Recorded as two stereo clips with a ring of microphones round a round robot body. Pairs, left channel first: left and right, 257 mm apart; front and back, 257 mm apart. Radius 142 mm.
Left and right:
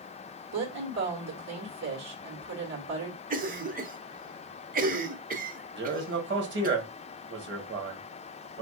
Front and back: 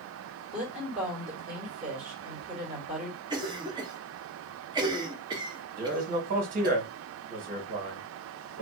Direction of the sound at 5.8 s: 125° right.